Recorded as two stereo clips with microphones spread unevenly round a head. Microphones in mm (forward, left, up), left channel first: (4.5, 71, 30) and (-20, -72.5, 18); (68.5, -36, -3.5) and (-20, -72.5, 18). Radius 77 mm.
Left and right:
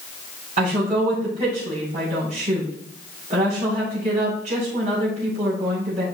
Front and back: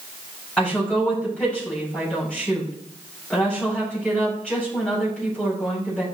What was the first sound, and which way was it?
A woman speaking, 55° right.